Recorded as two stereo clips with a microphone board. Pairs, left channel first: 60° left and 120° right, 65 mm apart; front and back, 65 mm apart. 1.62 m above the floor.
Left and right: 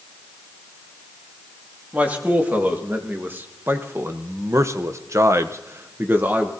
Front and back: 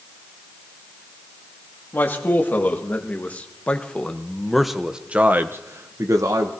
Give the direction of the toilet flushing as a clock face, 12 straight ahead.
I don't hear a toilet flushing.